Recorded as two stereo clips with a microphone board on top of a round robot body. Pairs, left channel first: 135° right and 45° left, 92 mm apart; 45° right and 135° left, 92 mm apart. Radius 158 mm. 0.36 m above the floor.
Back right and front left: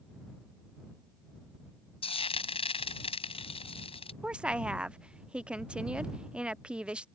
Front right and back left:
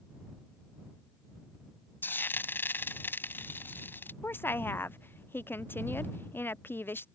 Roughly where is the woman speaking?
Ahead.